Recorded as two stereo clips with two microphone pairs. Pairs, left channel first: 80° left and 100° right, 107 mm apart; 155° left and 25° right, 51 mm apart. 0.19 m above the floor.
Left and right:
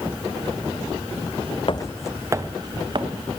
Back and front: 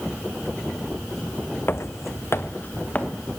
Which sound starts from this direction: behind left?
Footsteps, at 1.7 s.